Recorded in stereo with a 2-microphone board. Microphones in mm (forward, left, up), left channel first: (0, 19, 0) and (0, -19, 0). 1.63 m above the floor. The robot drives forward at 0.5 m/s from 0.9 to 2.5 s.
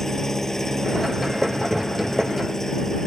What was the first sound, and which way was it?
An engine running, 10° left (ahead or behind).